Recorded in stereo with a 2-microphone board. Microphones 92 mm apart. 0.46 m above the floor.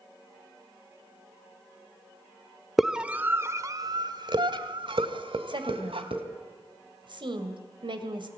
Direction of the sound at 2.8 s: Centre (ahead or behind).